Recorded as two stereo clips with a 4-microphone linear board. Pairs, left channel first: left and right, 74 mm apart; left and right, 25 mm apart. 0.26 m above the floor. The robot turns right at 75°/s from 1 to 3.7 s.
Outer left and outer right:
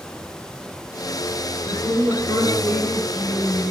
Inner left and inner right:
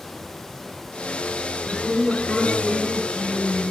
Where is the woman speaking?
95° right, 4 m; by 3.7 s 55° left, 4 m.